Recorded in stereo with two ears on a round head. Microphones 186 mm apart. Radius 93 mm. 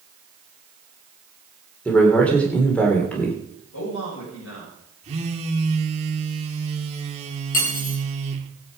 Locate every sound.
1.9 s a man speaking: 5° left (ahead or behind), 3 m
3.7 s a man speaking: 65° left (ahead or behind), 7.5 m
5.0 s a phone buzzing: 30° right (ahead or behind), 2 m
7.5 s cutlery clinking: 40° left (ahead or behind), 5.5 m